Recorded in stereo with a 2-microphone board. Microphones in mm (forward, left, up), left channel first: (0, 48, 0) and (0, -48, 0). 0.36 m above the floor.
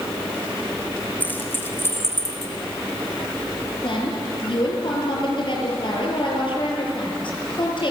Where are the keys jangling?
20° left (ahead or behind), 3 m; by 2.5 s 30° left (ahead or behind), 3 m.